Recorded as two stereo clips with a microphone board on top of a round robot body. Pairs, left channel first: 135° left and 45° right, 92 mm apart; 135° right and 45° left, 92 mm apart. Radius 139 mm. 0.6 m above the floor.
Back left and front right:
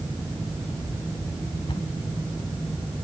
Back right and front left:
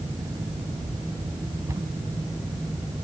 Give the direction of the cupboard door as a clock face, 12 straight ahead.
9 o'clock.